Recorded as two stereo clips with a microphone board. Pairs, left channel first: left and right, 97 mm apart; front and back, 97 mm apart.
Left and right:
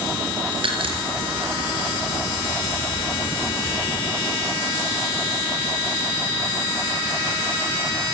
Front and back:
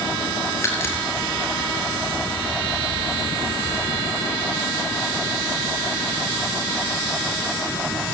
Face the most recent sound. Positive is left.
turn(degrees=-65)